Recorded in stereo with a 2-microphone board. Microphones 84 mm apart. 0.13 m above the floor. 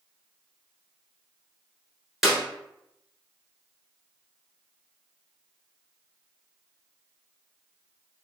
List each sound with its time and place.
2.2 s a clap: centre (ahead or behind), 1.2 m